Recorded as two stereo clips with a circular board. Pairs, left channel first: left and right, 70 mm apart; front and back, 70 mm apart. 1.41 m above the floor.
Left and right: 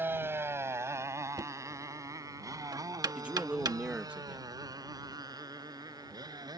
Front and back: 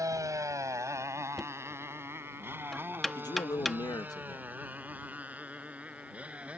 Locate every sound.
0.0 s a motorcycle: 150° right; by 6.6 s 110° right
1.4 s knocking: 85° right
3.1 s a man speaking: 20° right